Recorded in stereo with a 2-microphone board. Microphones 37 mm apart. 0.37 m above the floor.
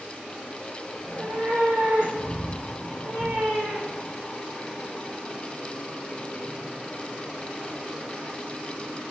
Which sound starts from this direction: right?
A cat meowing, at 1.0 s.